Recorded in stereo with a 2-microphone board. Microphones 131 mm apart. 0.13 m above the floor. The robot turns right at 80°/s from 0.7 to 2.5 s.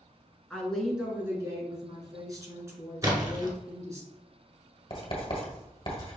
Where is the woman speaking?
170° left, 1.2 m; by 4.0 s 45° right, 1.2 m.